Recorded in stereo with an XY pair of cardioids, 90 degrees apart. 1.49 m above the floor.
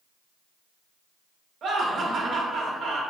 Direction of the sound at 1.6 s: 70° right.